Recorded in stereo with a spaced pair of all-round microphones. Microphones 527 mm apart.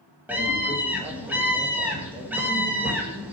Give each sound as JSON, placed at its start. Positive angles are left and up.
{"t": 0.3, "sound": "a scream", "side_deg": -5, "distance_m": 1.5}